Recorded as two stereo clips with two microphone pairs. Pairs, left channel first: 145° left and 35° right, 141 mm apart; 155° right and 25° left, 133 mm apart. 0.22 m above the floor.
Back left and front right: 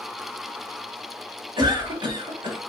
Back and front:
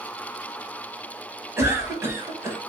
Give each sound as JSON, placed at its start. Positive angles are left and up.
{"t": 1.6, "sound": "a cough", "azimuth_deg": -25, "distance_m": 1.1}